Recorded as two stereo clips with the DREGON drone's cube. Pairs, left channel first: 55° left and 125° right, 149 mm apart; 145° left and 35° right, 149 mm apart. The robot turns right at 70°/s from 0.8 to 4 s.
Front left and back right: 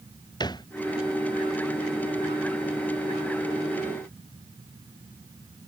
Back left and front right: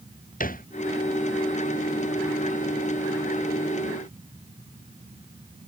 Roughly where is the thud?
Behind left.